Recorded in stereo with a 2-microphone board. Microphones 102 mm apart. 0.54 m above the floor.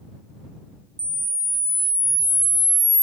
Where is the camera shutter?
15° right (ahead or behind).